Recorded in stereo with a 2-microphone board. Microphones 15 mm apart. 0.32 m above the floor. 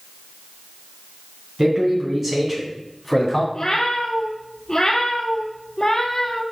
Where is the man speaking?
35° right (ahead or behind), 3 m; by 3.4 s 5° left (ahead or behind), 2.5 m.